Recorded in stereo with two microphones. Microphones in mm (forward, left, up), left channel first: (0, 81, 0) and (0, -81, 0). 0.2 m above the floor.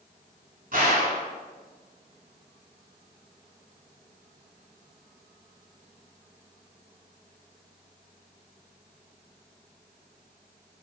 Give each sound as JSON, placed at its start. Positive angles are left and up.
{"t": 0.7, "sound": "a gunshot", "side_deg": -55, "distance_m": 1.1}